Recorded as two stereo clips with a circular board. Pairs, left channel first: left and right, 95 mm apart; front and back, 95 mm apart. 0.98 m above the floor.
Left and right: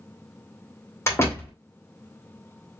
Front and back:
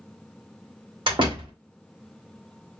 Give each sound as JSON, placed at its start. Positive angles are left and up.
{"t": 1.1, "sound": "a door slam", "azimuth_deg": 150, "distance_m": 2.0}